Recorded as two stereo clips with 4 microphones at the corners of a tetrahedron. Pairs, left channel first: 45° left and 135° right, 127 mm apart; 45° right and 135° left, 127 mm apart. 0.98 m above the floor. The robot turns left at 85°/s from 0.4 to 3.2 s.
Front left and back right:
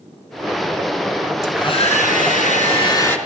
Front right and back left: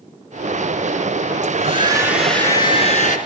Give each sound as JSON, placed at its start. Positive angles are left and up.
{"t": 1.4, "sound": "a hair dryer", "azimuth_deg": 115, "distance_m": 4.0}